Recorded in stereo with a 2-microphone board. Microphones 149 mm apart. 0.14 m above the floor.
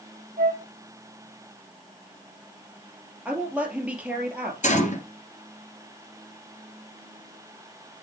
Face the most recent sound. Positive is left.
turn(degrees=55)  # may be behind; listen again after turning